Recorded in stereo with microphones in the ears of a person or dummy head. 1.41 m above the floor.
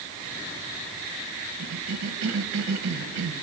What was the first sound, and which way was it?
A cough, 85° right.